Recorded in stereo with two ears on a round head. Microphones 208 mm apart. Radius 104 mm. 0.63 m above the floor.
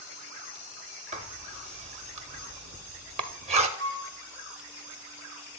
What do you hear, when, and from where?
1.1 s writing: 30° right (ahead or behind), 0.7 m
3.8 s a flute: 25° left (ahead or behind), 6 m